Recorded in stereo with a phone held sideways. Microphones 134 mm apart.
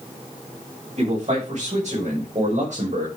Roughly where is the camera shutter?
No camera shutter in this recording.